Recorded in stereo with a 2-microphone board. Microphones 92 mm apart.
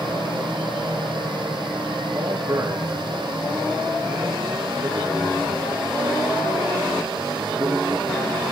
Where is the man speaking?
30° right (ahead or behind), 7.5 m.